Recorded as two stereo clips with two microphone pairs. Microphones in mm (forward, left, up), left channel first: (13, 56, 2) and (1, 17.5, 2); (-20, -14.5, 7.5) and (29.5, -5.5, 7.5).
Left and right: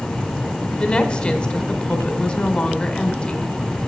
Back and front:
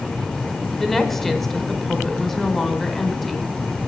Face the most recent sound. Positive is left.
turn(degrees=110)